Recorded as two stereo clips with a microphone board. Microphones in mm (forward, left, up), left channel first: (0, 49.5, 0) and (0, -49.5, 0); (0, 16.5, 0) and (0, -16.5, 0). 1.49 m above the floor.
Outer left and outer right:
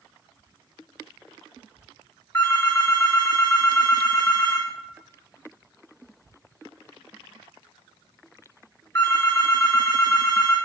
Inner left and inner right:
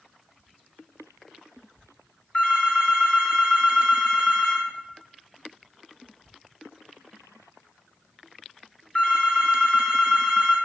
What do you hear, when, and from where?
2.3 s a phone ringing: 35° left (ahead or behind), 4 m